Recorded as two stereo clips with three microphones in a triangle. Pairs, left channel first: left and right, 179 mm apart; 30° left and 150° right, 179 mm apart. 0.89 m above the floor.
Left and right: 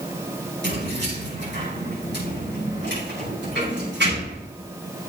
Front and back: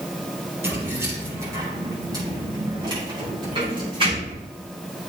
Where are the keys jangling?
70° right, 5.5 m; by 4.5 s 90° right, 6 m.